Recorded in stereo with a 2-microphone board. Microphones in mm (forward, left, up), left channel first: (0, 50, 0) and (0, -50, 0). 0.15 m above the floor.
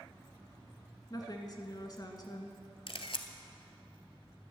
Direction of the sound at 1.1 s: 40° left (ahead or behind).